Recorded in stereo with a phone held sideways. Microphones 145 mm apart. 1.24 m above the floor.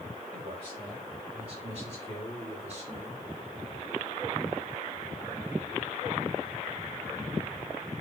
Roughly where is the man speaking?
Right.